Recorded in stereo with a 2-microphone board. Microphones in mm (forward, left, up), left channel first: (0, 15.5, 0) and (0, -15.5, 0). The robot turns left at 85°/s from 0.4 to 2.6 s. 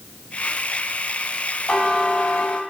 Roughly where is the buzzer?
Behind left.